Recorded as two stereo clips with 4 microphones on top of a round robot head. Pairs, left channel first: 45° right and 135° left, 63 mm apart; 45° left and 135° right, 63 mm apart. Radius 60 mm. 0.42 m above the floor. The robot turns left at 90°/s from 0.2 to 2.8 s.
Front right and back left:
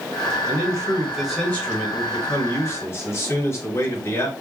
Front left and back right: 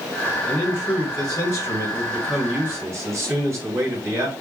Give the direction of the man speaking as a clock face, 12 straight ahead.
8 o'clock.